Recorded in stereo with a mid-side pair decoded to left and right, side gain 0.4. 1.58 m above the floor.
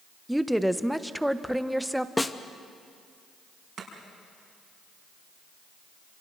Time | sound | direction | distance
0.3 | a woman speaking | 5° right | 1.2 m
2.2 | a snare drum | 15° left | 1.2 m
3.8 | chopping | 65° right | 5.5 m